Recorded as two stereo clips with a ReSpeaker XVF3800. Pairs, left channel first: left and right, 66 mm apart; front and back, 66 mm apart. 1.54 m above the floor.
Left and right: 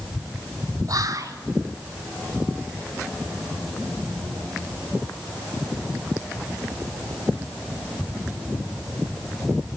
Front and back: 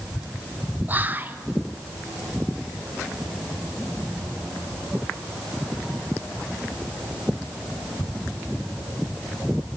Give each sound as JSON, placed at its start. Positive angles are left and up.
{"t": 0.9, "sound": "whispering", "azimuth_deg": -120, "distance_m": 1.3}